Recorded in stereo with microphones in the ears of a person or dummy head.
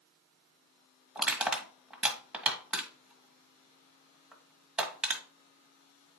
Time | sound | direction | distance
1.1 | crushing | 5° right (ahead or behind) | 1.3 m